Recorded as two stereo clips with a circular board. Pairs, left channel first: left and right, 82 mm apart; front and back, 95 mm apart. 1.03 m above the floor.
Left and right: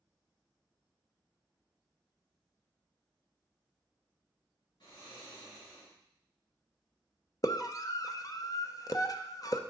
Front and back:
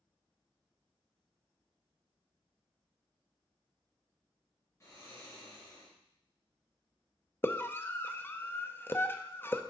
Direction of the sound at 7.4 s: 60° left.